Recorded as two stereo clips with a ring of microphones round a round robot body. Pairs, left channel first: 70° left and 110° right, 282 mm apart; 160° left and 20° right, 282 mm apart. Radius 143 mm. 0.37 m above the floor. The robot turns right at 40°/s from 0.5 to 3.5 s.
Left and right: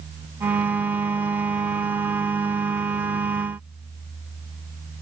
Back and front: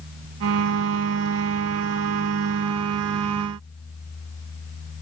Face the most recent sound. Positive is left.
No sound to turn to.